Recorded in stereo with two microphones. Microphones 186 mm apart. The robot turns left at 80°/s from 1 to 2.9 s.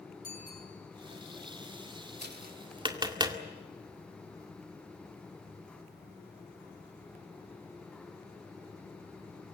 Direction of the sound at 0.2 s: 50° left (ahead or behind).